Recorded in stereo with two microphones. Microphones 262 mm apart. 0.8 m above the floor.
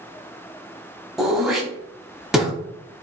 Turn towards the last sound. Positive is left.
turn(degrees=0)  # may be behind; listen again after turning